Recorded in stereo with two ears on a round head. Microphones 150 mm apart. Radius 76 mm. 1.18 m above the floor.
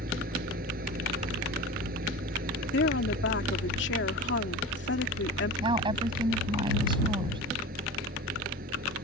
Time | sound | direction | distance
0.0 | an engine running | 55° right (ahead or behind) | ?
2.7 | a woman speaking | 80° left | ?
5.6 | a woman speaking | 30° right (ahead or behind) | ?